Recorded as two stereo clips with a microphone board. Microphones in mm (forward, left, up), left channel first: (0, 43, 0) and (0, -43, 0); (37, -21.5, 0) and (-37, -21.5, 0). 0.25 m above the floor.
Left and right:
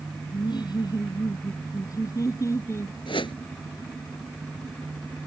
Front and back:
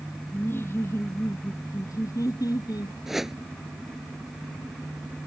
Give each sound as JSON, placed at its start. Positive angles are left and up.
{"t": 0.3, "sound": "laughter", "azimuth_deg": 60}
{"t": 3.1, "sound": "a whoosh", "azimuth_deg": 95}